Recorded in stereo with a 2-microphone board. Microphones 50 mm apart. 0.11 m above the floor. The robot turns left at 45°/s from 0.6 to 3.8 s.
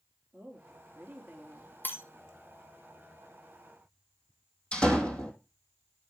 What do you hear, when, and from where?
0.3 s a woman speaking: 100° right, 3 m; by 1.7 s 150° right, 3 m
1.8 s breaking glass: 45° left (ahead or behind), 1.9 m; by 2.0 s 50° left (ahead or behind), 1.9 m
4.7 s a door slam: 20° left (ahead or behind), 2.5 m